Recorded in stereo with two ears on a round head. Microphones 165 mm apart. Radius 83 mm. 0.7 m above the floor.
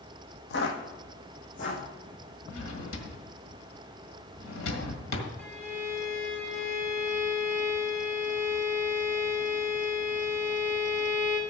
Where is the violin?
5° left (ahead or behind), 2.5 m.